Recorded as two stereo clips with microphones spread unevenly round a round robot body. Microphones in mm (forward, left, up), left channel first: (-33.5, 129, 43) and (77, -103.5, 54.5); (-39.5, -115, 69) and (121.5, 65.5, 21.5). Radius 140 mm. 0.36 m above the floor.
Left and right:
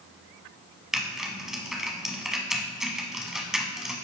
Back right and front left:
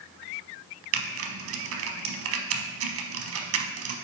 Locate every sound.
0.9 s typing on a keyboard: 25° left, 0.8 m